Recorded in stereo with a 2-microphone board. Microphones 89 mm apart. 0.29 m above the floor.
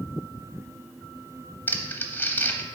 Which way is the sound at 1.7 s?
20° left (ahead or behind).